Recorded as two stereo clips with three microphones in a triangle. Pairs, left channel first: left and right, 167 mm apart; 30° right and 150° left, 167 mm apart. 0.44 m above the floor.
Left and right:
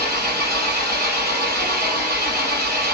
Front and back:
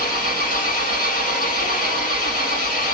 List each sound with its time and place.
0.0 s an engine running: 65° right, 6 m